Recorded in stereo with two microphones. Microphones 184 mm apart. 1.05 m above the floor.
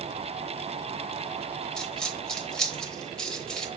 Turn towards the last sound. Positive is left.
turn(degrees=5)  # may be behind; listen again after turning